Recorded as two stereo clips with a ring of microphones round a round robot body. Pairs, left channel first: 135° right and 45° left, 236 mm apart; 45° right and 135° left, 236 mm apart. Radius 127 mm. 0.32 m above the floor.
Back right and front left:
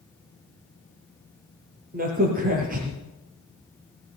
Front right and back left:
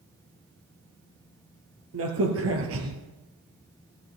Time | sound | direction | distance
1.9 | a crack | 100° left | 3.5 m